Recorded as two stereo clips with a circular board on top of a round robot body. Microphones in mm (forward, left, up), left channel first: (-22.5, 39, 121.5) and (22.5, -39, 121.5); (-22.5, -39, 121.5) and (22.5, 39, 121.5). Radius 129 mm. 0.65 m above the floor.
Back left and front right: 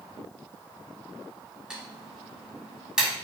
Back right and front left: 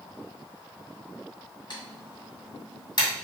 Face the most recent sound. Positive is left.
turn(degrees=-140)